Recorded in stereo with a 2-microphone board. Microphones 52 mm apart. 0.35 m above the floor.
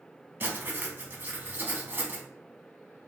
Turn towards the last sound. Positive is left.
turn(degrees=-35)  # may be behind; listen again after turning